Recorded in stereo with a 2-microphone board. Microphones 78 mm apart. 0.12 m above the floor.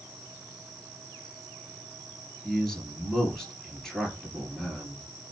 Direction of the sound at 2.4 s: 5° left (ahead or behind).